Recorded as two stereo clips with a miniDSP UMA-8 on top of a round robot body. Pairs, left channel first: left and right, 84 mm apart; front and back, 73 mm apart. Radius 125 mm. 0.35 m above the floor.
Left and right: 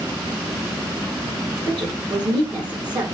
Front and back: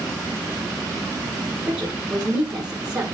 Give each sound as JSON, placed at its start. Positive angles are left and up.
{"t": 1.7, "sound": "a woman speaking", "azimuth_deg": -110, "distance_m": 2.5}